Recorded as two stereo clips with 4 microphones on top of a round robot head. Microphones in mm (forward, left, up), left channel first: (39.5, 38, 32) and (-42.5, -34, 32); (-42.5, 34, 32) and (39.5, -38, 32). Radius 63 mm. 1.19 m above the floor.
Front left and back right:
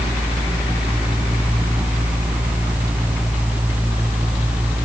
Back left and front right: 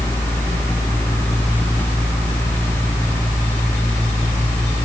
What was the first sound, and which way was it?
Only background noise.